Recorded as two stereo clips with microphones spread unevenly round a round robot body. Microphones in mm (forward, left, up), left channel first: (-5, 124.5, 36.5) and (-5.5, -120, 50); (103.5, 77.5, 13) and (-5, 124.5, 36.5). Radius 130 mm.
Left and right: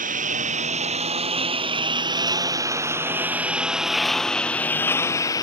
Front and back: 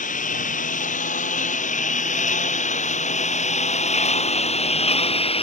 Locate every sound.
0.0 s a lawn mower: 30° right; by 5.4 s 15° left